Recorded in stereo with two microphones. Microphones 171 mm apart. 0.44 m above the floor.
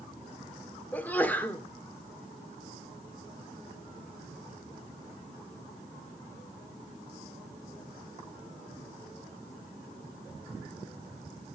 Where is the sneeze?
10° left (ahead or behind), 1.3 m.